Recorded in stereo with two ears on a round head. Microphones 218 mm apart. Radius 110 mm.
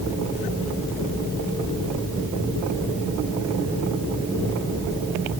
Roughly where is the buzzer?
I don't hear a buzzer.